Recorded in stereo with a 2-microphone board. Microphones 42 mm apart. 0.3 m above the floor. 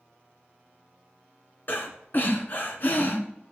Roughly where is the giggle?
I don't hear a giggle.